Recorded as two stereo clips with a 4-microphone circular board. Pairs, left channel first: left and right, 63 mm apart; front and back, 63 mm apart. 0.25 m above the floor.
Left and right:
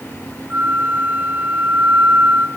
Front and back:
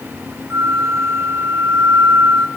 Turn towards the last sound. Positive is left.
turn(degrees=-145)